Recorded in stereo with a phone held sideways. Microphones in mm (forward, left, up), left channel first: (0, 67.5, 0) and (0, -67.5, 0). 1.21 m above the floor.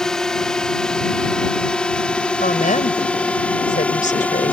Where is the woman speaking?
75° left (ahead or behind).